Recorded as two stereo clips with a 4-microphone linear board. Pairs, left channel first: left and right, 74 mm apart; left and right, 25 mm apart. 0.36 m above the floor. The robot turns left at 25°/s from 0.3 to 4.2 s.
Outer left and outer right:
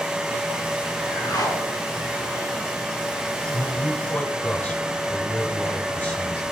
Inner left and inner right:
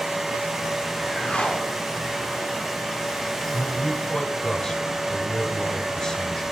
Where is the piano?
No piano in this recording.